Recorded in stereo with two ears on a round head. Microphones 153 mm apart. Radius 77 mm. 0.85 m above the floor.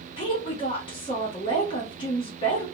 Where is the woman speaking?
30° left (ahead or behind), 0.8 m.